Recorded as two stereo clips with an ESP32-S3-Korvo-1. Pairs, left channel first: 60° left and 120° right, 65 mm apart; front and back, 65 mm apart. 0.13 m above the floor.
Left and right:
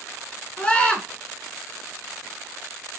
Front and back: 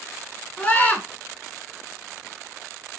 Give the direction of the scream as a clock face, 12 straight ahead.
11 o'clock.